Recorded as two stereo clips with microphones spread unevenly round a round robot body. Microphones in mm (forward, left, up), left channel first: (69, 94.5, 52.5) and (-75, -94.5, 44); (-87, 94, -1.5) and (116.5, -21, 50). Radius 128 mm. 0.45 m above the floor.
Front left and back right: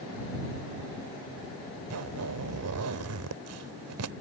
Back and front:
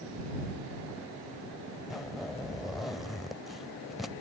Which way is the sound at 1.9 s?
125° right.